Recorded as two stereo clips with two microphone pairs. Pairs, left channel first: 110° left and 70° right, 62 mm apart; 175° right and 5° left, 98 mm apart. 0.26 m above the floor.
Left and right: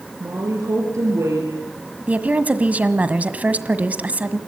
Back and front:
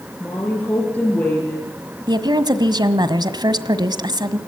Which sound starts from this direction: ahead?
A woman speaking, at 2.1 s.